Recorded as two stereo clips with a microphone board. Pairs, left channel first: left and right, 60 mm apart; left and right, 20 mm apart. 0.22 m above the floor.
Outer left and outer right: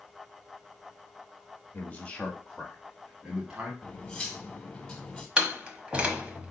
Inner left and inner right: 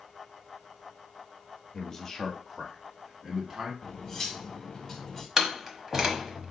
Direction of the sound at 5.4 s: 20° right (ahead or behind).